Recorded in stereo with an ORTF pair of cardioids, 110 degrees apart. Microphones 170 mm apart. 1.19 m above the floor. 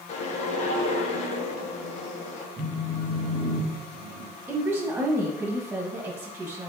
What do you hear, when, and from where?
0.1 s a whoosh: 45° left, 0.9 m
2.6 s a phone buzzing: 10° right, 1.3 m
4.5 s a woman speaking: 10° right, 1.4 m